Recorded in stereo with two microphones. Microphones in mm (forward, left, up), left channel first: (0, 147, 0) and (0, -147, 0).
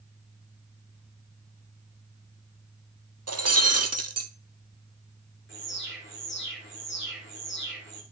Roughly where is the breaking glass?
Right.